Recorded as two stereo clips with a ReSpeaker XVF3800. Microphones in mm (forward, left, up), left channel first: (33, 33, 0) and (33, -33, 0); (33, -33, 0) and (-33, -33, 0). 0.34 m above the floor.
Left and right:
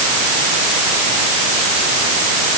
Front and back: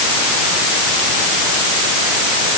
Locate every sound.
Only background noise.